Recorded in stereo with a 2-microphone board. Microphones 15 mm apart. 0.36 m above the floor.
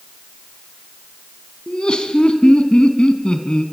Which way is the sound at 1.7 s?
60° left (ahead or behind).